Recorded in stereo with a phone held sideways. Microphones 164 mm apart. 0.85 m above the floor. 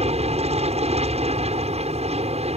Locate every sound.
0.0 s an aircraft: 40° right (ahead or behind)